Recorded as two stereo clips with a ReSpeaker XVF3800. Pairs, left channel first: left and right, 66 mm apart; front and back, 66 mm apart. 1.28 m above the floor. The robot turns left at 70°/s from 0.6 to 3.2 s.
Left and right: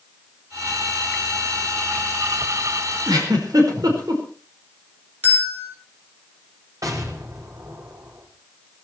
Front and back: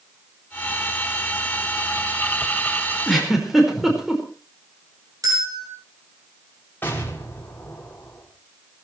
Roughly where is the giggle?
Right.